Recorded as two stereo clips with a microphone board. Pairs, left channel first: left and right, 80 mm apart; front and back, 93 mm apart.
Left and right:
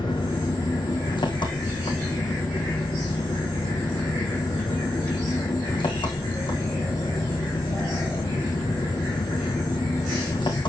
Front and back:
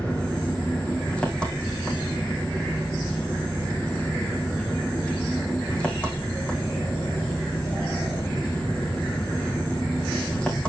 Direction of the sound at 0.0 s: 80° left.